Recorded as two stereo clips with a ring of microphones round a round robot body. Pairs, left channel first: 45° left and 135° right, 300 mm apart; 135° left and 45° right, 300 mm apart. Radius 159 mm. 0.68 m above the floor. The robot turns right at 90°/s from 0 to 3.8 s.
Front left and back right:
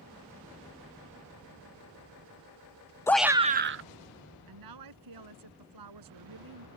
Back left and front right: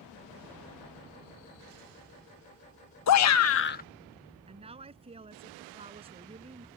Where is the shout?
125° left; by 3.8 s 170° right.